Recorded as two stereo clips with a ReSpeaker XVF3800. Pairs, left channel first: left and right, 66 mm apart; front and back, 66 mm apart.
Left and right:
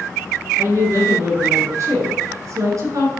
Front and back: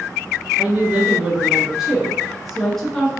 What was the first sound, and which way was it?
A woman speaking, 120° right.